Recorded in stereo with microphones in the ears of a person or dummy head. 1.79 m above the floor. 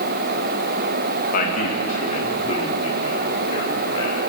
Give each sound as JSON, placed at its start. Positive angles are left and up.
{"t": 1.3, "sound": "a man speaking", "side_deg": 55, "distance_m": 2.5}